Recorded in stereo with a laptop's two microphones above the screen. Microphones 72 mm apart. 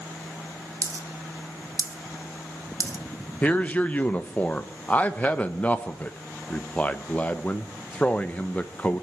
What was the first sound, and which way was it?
A dropped coin, 50° right (ahead or behind).